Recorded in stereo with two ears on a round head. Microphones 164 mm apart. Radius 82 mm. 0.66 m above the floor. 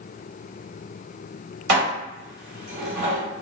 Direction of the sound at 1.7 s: 55° right (ahead or behind).